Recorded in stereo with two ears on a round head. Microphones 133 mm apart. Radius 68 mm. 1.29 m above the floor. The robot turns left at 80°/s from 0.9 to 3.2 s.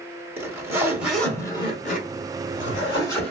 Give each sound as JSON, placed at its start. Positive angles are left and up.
{"t": 0.4, "sound": "a zipper", "azimuth_deg": -160, "distance_m": 1.4}